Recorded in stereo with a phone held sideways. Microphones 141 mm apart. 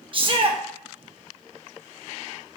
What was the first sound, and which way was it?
A shout, 40° right (ahead or behind).